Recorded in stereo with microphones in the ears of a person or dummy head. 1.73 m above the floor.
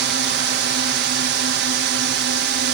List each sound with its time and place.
0.0 s a drone: 50° right (ahead or behind)